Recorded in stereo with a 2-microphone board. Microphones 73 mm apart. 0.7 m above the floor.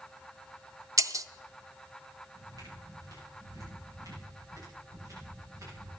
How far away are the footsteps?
About 8.5 m.